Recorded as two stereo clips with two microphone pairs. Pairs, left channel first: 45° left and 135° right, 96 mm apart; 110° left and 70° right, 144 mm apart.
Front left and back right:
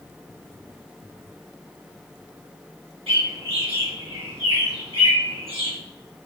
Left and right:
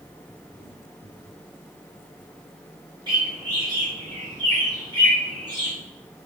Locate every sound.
3.1 s a bird: 130° right, 4.5 m